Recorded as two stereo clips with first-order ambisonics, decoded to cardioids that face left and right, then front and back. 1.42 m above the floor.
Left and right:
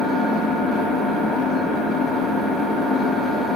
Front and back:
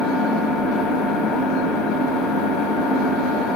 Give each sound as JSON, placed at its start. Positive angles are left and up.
{"t": 0.0, "sound": "an engine running", "azimuth_deg": -25, "distance_m": 0.9}